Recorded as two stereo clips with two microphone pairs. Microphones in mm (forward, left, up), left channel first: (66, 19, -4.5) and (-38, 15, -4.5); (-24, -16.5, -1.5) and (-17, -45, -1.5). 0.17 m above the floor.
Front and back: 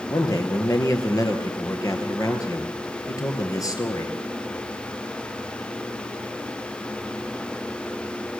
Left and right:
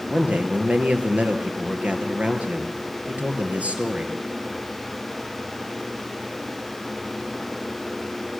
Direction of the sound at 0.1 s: 45° right.